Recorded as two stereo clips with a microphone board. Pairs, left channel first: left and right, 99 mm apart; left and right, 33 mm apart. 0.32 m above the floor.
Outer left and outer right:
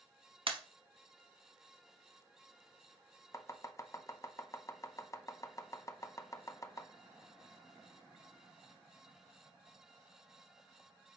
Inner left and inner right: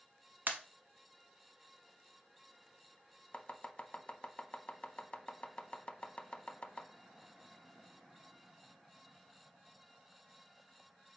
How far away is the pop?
About 0.8 m.